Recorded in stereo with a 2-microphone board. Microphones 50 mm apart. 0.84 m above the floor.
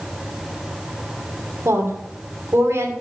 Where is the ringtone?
No ringtone in this recording.